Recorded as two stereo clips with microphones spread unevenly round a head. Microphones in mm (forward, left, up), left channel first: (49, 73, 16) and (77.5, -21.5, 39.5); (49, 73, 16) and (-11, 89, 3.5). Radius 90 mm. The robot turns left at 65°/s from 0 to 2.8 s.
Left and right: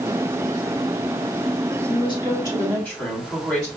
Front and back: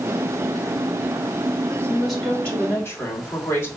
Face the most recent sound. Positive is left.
turn(degrees=35)